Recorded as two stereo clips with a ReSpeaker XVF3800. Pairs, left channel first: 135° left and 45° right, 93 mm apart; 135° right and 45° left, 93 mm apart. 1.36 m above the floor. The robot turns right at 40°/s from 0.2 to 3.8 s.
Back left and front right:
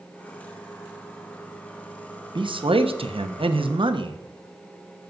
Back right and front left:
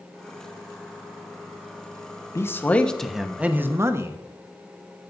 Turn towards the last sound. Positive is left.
turn(degrees=-15)